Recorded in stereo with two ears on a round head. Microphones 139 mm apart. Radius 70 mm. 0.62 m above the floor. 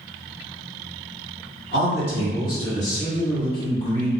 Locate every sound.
1.7 s a man speaking: 65° left (ahead or behind), 1.9 m; by 4.2 s 5° left (ahead or behind), 0.9 m